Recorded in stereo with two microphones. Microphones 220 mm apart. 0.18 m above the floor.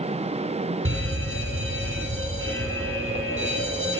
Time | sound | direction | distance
0.8 | an alarm | 65° right (ahead or behind) | 7.5 m